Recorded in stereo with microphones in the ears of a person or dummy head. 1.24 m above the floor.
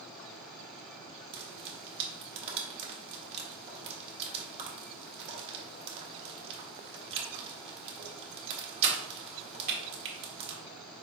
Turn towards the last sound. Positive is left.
turn(degrees=-30)  # may be behind; listen again after turning